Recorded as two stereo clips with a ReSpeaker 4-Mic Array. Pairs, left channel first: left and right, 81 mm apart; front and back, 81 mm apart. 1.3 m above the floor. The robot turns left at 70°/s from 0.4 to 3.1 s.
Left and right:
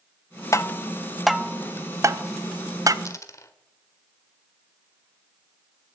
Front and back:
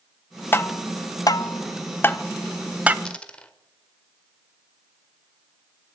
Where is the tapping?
55° left, 0.6 m; by 3.0 s 115° right, 0.6 m.